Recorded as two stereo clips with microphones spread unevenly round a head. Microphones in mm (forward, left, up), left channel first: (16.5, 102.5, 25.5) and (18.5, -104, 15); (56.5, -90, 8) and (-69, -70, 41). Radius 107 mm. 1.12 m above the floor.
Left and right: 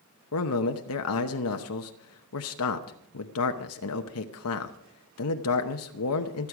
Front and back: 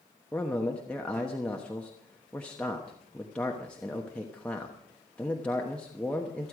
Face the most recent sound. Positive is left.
turn(degrees=75)